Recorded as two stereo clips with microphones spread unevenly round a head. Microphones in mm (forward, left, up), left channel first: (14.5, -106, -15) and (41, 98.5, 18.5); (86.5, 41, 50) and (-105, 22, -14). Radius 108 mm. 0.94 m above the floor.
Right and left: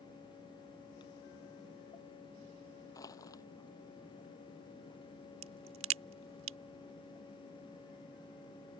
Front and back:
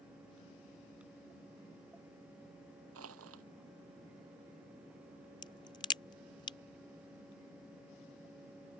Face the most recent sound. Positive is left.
turn(degrees=70)